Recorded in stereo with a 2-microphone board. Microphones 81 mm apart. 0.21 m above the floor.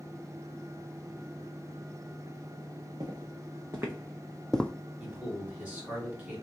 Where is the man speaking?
20° right (ahead or behind), 2.5 m.